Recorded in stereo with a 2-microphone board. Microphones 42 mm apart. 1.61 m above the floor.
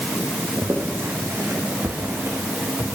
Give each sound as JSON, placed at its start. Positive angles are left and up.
{"t": 0.6, "sound": "footsteps", "side_deg": -65, "distance_m": 4.0}